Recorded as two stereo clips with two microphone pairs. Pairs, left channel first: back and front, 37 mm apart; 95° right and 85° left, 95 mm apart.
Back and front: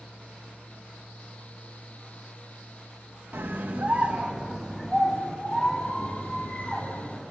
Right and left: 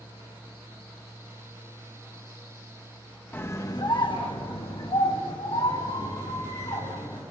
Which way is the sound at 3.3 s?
25° right.